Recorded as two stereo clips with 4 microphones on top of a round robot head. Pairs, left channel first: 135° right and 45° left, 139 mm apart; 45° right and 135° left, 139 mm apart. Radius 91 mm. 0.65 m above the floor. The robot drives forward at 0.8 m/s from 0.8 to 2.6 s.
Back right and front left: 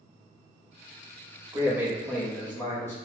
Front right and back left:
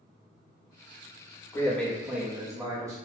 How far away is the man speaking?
About 1.0 m.